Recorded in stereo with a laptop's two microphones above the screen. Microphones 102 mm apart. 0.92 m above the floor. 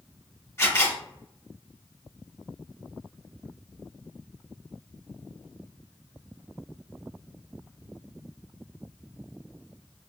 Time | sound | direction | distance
0.6 | a camera shutter | 20° left (ahead or behind) | 1.6 m